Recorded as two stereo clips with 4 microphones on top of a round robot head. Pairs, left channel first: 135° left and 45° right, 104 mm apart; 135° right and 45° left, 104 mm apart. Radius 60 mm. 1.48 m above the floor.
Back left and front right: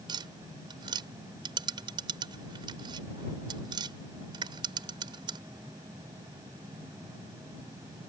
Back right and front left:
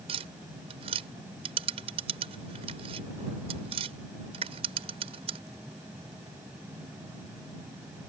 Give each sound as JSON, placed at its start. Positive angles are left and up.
{"t": 0.1, "sound": "tapping", "azimuth_deg": 5}